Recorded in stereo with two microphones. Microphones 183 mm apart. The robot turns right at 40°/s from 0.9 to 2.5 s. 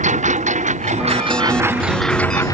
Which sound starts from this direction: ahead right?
A lawn mower, at 0.0 s.